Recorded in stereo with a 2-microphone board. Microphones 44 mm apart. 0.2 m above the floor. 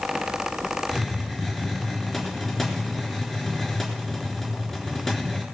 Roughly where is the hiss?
Centre.